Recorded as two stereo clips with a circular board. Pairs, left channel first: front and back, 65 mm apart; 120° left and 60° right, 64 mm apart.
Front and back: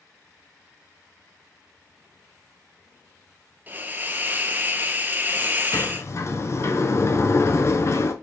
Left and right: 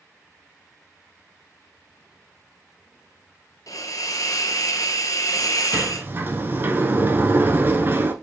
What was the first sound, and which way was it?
A hiss, 125° left.